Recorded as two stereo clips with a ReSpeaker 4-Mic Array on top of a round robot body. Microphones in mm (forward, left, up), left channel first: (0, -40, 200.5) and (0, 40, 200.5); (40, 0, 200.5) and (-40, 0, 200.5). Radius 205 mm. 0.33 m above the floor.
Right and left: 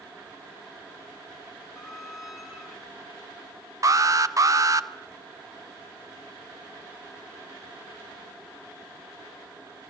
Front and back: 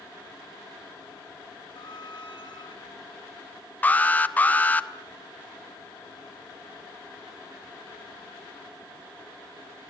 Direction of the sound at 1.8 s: 5° left.